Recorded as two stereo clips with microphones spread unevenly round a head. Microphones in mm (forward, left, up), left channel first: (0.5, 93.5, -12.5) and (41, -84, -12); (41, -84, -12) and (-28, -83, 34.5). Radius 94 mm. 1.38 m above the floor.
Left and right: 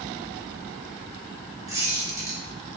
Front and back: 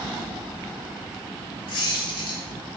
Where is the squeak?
5° right, 2.5 m.